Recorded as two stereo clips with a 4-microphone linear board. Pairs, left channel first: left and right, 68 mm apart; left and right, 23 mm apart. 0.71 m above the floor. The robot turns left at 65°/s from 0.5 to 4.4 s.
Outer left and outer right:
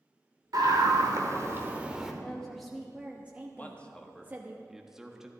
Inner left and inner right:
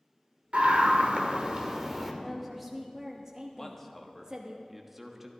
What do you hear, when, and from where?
0.5 s a scream: 75° right, 2.0 m; by 2.1 s 175° right, 2.0 m
2.2 s a woman speaking: 15° left (ahead or behind), 1.0 m; by 4.6 s 25° right (ahead or behind), 1.0 m
3.6 s a man speaking: 25° left (ahead or behind), 1.2 m; by 5.3 s 5° right (ahead or behind), 1.2 m